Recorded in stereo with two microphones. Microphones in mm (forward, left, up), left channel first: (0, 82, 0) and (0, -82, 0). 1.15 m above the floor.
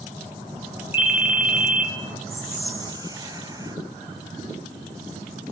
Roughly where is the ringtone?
Centre.